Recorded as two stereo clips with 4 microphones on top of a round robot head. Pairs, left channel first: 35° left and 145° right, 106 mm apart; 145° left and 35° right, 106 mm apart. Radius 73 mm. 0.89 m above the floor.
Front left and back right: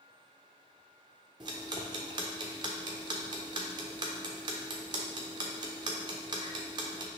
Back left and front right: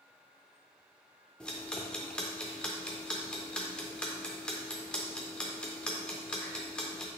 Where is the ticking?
140° right, 0.5 m.